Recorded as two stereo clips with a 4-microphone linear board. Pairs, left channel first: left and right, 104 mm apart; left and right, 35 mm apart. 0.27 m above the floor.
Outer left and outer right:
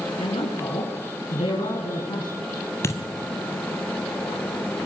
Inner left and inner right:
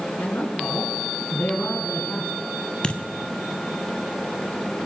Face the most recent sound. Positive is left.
turn(degrees=25)  # may be behind; listen again after turning